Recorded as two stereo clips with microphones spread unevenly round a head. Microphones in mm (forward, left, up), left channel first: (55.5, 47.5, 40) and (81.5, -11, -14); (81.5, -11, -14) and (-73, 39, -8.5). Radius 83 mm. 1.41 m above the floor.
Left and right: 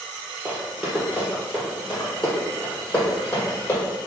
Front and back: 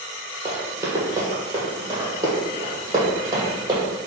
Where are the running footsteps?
120° left, 1.5 m; by 3.8 s 100° left, 2.5 m.